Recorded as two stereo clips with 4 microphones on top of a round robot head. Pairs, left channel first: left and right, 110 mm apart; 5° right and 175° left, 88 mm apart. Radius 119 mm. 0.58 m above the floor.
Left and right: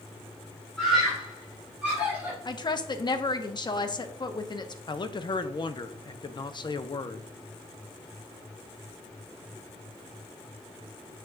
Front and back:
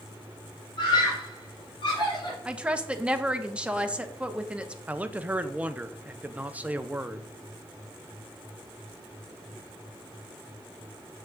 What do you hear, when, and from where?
0.8 s a scream: 5° left, 3 m; by 2.4 s 20° right, 3.5 m
2.5 s a woman speaking: 105° left, 1.0 m
4.9 s a man speaking: 105° left, 0.8 m